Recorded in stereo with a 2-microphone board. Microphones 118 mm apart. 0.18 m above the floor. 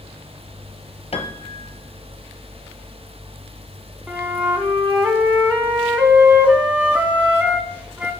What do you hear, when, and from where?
1.1 s a piano: 60° left (ahead or behind), 0.9 m
4.1 s a flute: 15° right (ahead or behind), 1.5 m